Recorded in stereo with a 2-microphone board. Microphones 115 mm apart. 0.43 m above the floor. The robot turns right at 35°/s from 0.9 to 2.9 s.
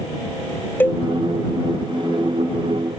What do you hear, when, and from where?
0.8 s a cowbell: 20° left (ahead or behind); by 1.0 s 25° left (ahead or behind)